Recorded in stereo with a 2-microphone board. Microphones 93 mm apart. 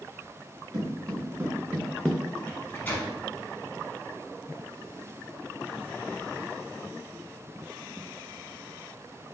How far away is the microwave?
About 0.9 m.